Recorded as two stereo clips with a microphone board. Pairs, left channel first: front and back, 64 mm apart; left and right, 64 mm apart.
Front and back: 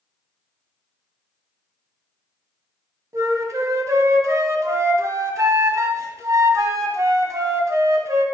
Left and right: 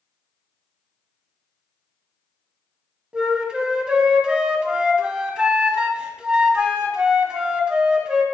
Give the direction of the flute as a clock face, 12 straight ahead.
5 o'clock.